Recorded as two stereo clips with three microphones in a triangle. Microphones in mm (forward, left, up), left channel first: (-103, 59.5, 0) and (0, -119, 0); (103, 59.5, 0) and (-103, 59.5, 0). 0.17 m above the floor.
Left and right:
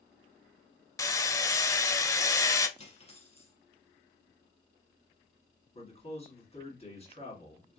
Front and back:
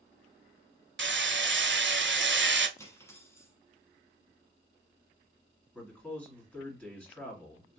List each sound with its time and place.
1.0 s hammering: 165° right, 0.5 m
2.8 s cutlery clinking: 75° left, 1.0 m
5.8 s a man speaking: 80° left, 2 m